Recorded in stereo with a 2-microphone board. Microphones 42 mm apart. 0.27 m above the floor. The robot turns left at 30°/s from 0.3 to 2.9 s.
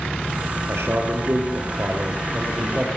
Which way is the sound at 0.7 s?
90° right.